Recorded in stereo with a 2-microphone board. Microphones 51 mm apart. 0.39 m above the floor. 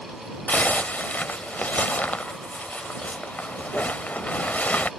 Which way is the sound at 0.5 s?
35° left (ahead or behind).